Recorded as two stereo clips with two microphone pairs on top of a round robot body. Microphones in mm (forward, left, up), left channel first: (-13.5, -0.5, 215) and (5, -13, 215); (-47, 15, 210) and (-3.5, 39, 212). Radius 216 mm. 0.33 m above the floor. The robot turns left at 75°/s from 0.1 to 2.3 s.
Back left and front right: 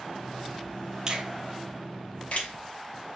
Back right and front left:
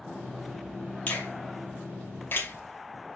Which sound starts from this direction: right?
A finger snap, at 1.1 s.